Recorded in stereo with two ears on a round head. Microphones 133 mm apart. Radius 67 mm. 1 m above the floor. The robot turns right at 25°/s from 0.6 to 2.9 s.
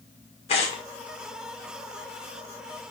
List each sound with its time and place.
0.5 s tearing paper: 45° left (ahead or behind), 2 m; by 0.8 s 50° left (ahead or behind), 2 m